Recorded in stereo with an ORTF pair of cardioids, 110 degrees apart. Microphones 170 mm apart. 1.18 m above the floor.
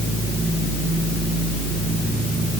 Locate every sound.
Only background noise.